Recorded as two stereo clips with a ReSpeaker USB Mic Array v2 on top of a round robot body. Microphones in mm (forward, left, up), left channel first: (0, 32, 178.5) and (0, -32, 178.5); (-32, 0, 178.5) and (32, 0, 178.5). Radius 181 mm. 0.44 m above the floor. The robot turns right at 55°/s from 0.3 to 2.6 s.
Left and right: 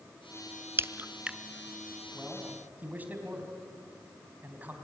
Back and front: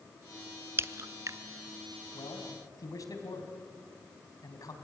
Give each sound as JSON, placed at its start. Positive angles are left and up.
{"t": 0.8, "sound": "a crack", "azimuth_deg": -45, "distance_m": 0.7}
{"t": 2.1, "sound": "a man speaking", "azimuth_deg": 180, "distance_m": 4.0}